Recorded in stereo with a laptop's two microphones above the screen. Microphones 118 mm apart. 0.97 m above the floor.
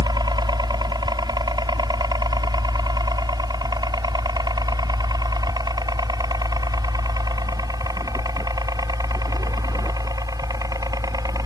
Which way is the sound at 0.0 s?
35° right (ahead or behind).